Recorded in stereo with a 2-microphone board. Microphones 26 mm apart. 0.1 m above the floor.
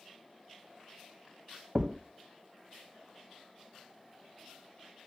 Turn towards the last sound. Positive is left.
turn(degrees=-20)  # may be behind; listen again after turning